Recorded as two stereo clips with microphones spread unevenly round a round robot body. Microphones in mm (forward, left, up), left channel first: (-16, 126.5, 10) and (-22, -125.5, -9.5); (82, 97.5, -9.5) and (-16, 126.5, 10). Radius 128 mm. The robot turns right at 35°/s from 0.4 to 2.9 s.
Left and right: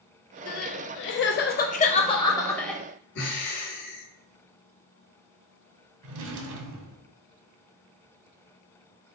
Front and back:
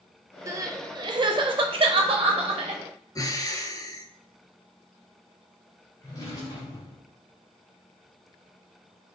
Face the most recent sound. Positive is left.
turn(degrees=-85)